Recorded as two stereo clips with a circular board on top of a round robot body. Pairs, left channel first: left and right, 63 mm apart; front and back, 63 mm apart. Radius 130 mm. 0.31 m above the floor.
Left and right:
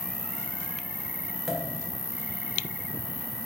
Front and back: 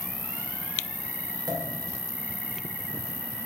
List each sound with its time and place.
0.0 s an insect: 145° right, 1.4 m
1.5 s a pop: 175° right, 1.8 m